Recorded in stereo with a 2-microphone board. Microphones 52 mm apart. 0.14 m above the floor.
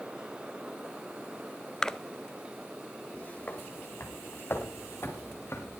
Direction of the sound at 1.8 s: 15° left (ahead or behind).